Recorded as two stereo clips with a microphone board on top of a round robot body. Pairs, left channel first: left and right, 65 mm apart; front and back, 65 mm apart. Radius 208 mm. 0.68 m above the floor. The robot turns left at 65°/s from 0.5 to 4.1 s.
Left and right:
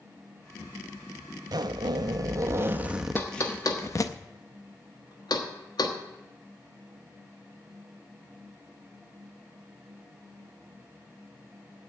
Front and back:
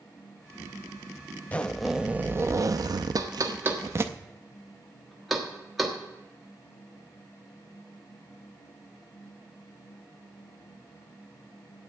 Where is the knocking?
150° left, 1.5 m; by 6.0 s 90° left, 1.5 m.